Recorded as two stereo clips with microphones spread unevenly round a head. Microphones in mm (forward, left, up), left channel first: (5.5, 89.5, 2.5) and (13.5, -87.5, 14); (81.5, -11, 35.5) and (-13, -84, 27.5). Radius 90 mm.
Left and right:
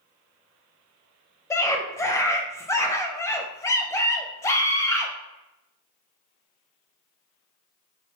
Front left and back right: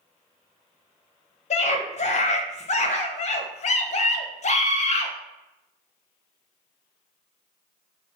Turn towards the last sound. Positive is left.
turn(degrees=15)